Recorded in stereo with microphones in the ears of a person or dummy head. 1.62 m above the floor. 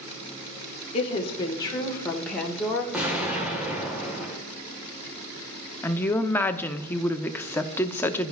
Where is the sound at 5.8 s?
15° left (ahead or behind), 0.6 m.